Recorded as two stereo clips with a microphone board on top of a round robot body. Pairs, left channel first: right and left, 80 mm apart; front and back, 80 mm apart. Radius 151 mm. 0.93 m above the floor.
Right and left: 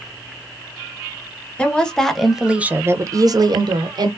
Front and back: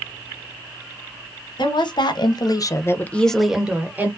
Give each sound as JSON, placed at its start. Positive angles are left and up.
{"t": 1.6, "sound": "a woman speaking", "azimuth_deg": -15, "distance_m": 1.0}